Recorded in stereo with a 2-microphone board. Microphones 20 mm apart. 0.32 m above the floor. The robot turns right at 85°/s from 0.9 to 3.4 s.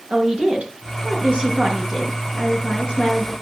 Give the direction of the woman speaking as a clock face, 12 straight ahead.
3 o'clock.